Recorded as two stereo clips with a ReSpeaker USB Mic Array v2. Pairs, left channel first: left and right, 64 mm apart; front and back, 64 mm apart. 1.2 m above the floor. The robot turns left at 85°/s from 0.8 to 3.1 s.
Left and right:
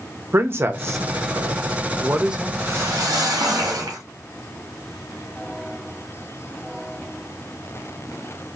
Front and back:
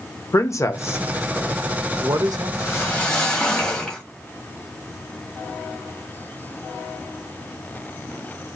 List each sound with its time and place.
0.3 s a man speaking: 40° right, 0.5 m; by 2.5 s straight behind, 0.5 m
2.6 s a whoosh: 35° right, 1.3 m; by 4.0 s 80° right, 1.3 m